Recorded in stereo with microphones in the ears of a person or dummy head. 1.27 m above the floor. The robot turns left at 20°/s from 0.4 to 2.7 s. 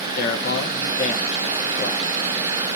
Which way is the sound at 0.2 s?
55° left.